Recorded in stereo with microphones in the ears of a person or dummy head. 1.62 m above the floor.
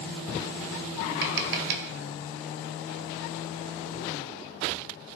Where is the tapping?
50° right (ahead or behind), 0.7 m.